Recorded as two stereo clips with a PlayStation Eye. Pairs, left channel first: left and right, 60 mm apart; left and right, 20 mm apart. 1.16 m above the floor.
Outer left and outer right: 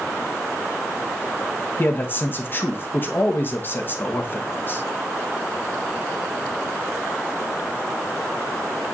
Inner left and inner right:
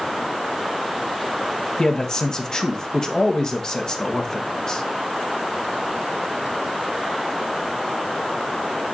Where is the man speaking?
35° left (ahead or behind), 1.1 m.